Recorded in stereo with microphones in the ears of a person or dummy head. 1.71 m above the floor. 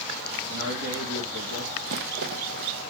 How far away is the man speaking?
About 3 m.